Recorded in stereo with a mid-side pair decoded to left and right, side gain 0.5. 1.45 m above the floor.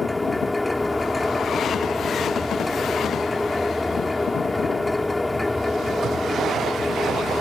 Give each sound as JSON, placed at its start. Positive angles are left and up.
{"t": 0.0, "sound": "a machine running", "azimuth_deg": 15}